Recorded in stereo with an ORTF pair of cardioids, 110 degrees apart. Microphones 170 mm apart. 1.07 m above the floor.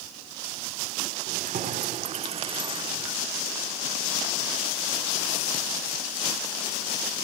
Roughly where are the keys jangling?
Ahead right.